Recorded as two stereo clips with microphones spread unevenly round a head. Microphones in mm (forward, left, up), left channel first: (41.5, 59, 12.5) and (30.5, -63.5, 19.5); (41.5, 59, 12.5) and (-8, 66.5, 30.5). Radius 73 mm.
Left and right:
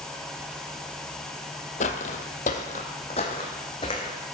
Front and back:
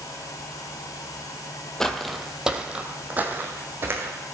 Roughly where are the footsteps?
Left.